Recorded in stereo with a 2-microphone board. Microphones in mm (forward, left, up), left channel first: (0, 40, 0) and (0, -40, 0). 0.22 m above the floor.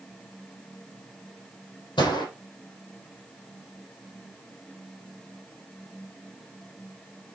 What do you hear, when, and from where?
2.0 s a gunshot: 70° left (ahead or behind), 7.5 m